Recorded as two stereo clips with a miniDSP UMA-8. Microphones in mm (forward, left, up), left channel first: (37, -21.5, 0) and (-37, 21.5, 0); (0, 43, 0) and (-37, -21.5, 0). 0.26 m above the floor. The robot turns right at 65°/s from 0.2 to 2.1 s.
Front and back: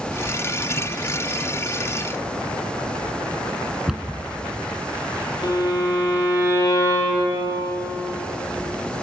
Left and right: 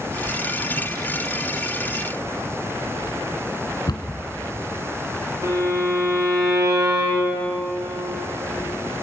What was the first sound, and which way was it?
A cupboard door, 65° left.